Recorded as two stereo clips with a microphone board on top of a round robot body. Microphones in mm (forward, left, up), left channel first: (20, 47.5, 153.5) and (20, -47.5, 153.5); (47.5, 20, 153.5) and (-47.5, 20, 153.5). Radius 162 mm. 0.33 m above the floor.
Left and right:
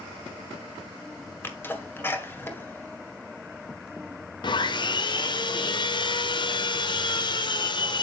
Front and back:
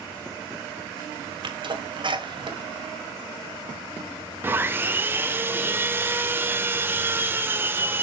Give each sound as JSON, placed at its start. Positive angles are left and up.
{"t": 1.4, "sound": "a sneeze", "azimuth_deg": 155, "distance_m": 2.0}
{"t": 4.4, "sound": "sawing", "azimuth_deg": 115, "distance_m": 1.2}